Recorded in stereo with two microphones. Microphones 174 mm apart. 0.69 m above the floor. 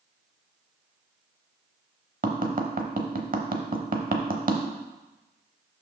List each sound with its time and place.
2.2 s tapping: 55° right (ahead or behind), 0.8 m